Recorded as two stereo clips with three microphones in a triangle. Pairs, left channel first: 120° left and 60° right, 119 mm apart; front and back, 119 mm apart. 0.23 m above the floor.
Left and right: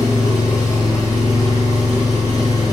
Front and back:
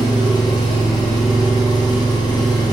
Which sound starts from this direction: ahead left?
An engine running, at 0.0 s.